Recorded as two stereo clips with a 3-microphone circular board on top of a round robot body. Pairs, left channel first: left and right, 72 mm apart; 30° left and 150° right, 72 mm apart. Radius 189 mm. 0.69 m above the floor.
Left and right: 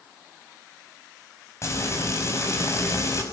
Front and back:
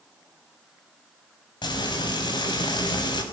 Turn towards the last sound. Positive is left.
turn(degrees=40)